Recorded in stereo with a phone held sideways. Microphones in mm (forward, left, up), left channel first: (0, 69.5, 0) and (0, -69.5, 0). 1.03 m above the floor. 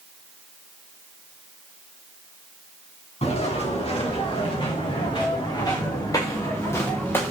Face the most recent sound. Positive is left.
turn(degrees=15)  # may be behind; listen again after turning